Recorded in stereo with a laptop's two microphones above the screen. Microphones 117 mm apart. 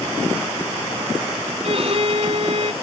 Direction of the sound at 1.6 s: 60° right (ahead or behind).